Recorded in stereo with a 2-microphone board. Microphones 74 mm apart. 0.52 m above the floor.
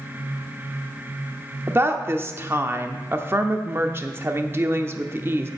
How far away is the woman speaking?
About 0.8 m.